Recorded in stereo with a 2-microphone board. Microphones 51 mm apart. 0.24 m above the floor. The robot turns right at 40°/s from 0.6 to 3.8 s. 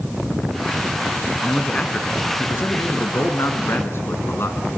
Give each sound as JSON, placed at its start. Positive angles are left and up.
{"t": 1.4, "sound": "a man speaking", "azimuth_deg": 15, "distance_m": 2.5}